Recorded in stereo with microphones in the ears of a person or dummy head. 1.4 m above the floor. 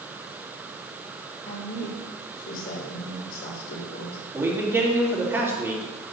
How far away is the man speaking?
About 2.5 m.